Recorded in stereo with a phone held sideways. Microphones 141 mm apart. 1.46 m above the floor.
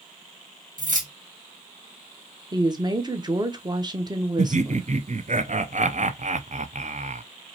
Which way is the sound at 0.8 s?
70° right (ahead or behind).